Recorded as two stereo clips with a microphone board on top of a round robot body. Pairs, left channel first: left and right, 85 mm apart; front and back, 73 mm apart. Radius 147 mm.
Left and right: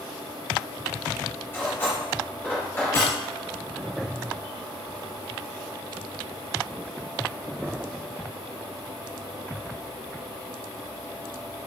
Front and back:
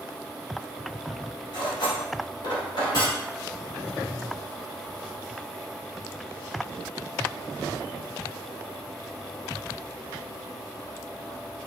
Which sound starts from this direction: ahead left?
Cutlery clinking, at 1.5 s.